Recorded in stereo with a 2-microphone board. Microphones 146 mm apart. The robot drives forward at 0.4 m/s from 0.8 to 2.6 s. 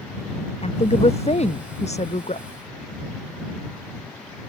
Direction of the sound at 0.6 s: 45° left (ahead or behind).